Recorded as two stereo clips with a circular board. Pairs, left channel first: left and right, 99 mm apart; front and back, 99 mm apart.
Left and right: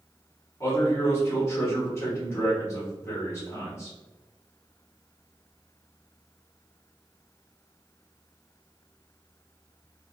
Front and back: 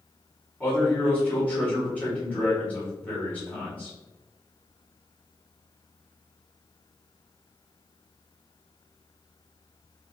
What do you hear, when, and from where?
0.6 s a man speaking: 60° left, 1.3 m